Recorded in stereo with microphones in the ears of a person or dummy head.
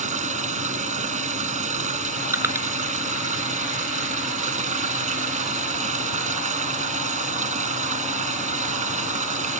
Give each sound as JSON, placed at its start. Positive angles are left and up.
{"t": 0.0, "sound": "running water", "side_deg": -45}
{"t": 2.3, "sound": "crushing", "side_deg": -20}